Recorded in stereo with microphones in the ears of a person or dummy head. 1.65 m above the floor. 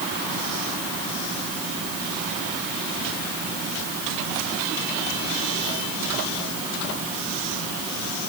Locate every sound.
Only background noise.